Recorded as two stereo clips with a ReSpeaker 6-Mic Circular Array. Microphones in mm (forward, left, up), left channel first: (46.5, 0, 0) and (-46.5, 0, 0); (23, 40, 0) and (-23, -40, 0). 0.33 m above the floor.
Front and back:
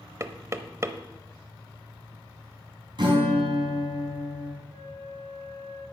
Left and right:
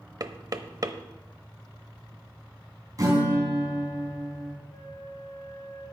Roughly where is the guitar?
Behind.